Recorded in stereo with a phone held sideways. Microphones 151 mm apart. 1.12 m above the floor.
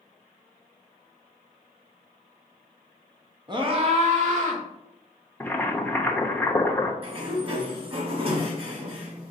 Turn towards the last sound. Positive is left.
turn(degrees=-40)  # may be behind; listen again after turning